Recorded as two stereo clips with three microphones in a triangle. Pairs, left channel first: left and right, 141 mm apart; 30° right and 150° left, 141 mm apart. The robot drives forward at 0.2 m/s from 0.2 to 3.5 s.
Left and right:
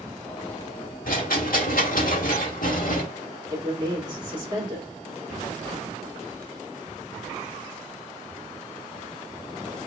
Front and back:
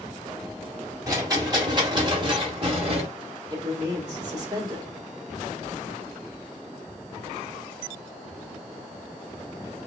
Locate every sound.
1.1 s a rattle: 85° left, 1.2 m; by 3.0 s 105° left, 1.2 m
3.5 s a man speaking: 150° right, 1.8 m